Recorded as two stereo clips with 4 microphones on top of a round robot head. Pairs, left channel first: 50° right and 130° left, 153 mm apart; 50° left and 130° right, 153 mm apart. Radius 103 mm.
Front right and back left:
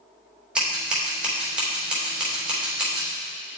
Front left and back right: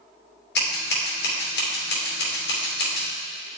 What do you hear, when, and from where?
0.6 s scissors: 45° left, 2.5 m